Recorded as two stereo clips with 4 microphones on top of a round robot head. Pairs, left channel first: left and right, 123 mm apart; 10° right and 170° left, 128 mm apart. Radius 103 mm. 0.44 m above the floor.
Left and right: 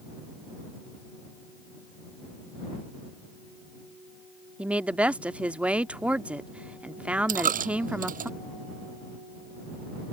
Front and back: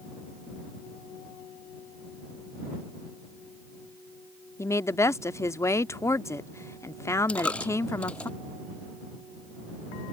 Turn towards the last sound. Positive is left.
turn(degrees=-90)